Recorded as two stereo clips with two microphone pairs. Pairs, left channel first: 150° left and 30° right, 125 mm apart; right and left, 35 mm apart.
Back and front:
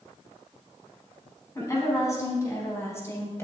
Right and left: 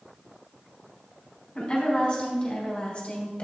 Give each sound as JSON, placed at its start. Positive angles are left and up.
{"t": 1.6, "sound": "a woman speaking", "azimuth_deg": -145, "distance_m": 4.0}